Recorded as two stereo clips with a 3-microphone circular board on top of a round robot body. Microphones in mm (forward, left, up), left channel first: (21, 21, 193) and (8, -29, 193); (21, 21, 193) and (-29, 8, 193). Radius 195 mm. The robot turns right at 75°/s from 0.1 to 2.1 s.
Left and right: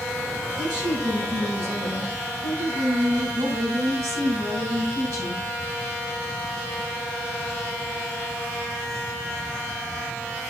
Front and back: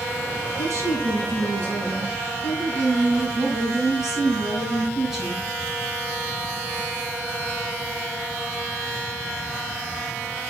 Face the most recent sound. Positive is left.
turn(degrees=-75)